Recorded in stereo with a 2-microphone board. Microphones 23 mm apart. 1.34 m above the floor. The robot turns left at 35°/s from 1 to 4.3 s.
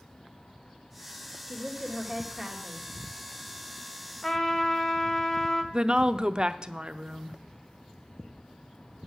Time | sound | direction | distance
1.5 | a woman speaking | 35° left | 2 m
4.2 | a trumpet | 25° left (ahead or behind) | 1.3 m
5.7 | a woman speaking | 40° right (ahead or behind) | 0.5 m